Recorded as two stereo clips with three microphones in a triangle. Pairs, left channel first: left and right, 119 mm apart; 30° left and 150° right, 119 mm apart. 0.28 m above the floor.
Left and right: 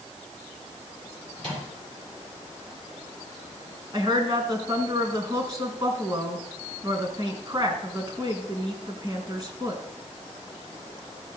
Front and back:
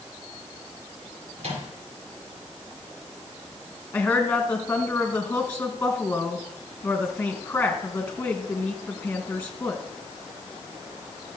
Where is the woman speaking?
40° right, 3 m.